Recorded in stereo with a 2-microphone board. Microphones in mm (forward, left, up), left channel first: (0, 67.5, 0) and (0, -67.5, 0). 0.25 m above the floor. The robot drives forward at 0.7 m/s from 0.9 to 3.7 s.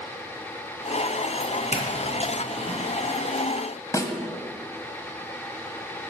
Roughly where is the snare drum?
Left.